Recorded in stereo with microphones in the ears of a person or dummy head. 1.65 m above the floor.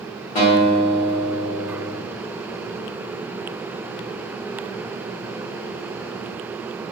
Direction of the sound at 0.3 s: 40° left (ahead or behind).